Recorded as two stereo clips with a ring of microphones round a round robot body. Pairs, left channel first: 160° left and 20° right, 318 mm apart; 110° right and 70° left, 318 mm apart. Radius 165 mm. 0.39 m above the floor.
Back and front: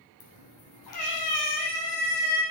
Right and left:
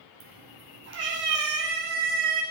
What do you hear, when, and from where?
0.2 s a cat meowing: 120° left, 3.5 m; by 2.4 s 130° left, 4 m